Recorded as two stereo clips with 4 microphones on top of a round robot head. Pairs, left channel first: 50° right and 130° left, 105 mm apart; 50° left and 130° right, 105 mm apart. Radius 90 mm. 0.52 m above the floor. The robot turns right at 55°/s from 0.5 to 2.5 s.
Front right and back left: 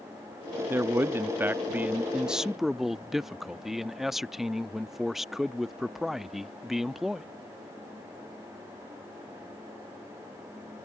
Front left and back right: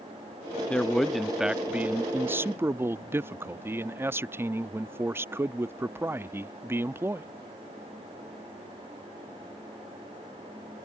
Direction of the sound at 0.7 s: 110° left.